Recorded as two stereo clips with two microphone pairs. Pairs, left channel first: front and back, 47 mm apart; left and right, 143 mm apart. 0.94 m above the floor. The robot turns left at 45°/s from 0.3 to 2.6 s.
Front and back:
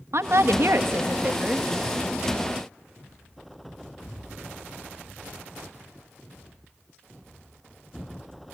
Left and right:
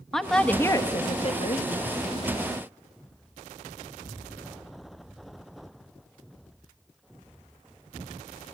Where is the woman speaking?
Straight behind, 0.9 m; by 1.7 s 115° left, 0.9 m.